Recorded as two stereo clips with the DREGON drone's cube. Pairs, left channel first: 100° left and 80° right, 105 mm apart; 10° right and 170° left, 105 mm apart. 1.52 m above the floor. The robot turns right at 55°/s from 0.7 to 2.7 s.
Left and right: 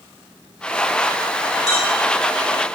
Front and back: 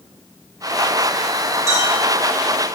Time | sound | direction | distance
1.7 | a clink | 110° left | 2 m